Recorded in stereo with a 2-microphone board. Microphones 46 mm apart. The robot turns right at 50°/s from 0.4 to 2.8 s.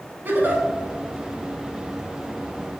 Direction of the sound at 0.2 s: 45° right (ahead or behind).